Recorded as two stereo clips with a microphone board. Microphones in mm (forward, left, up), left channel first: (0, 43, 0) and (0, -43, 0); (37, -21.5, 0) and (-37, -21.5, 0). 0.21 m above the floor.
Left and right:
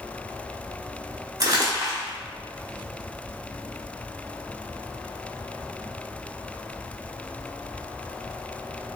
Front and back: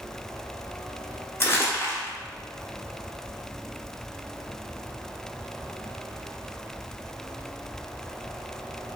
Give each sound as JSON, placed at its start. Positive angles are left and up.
{"t": 1.4, "sound": "crumpling", "azimuth_deg": -50, "distance_m": 1.1}